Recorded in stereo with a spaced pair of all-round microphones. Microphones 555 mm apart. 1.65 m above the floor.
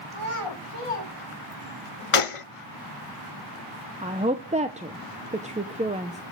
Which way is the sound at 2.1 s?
65° left (ahead or behind).